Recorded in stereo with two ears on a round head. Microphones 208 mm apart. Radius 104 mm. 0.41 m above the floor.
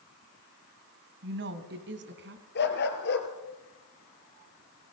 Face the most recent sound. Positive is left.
turn(degrees=50)  # may be behind; listen again after turning